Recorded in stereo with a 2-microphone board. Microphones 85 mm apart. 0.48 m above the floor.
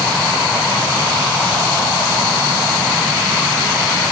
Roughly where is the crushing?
I don't hear crushing.